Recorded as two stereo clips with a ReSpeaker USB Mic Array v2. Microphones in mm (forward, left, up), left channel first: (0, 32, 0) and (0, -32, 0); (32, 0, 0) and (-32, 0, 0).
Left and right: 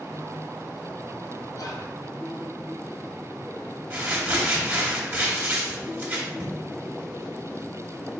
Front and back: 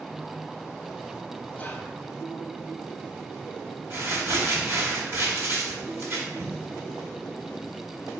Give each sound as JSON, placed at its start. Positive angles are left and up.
{"t": 1.5, "sound": "whispering", "azimuth_deg": 65, "distance_m": 0.7}
{"t": 3.9, "sound": "crumpling", "azimuth_deg": -150, "distance_m": 1.3}